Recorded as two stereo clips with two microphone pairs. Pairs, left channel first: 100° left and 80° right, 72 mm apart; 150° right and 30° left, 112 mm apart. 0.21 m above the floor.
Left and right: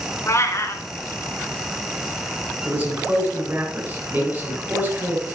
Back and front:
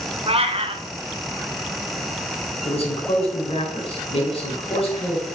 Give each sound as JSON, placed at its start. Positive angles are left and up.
{"t": 0.3, "sound": "a cat meowing", "azimuth_deg": 55, "distance_m": 0.9}
{"t": 2.6, "sound": "a man speaking", "azimuth_deg": -145, "distance_m": 3.5}